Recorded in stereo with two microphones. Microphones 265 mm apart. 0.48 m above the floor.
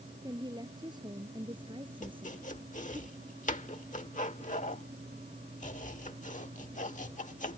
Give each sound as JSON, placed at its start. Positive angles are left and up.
{"t": 0.2, "sound": "a woman speaking", "side_deg": -15}
{"t": 2.0, "sound": "chopping", "side_deg": 30}